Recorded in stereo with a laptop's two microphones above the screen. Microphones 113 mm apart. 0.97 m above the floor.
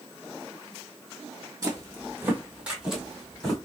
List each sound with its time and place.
1.6 s footsteps: 30° right (ahead or behind), 1.6 m; by 3.6 s 5° left (ahead or behind), 1.9 m